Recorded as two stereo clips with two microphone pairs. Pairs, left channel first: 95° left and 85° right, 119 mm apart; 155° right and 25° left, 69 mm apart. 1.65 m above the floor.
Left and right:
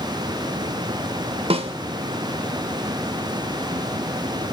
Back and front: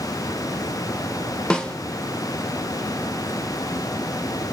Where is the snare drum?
75° right, 1.1 m.